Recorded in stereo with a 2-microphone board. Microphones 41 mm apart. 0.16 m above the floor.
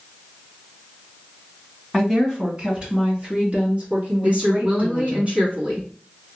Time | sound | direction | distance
1.9 | a woman speaking | 5° right (ahead or behind) | 1.4 m
4.2 | a woman speaking | 30° right (ahead or behind) | 1.9 m